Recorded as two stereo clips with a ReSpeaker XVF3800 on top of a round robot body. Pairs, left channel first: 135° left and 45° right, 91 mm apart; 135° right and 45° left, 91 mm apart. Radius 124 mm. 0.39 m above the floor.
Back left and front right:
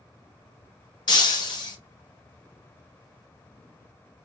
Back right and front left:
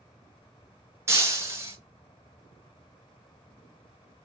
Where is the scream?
I don't hear a scream.